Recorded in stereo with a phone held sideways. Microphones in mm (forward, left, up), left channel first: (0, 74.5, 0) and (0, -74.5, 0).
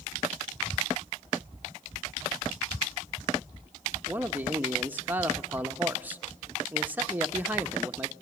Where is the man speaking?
10° right (ahead or behind), 0.9 m.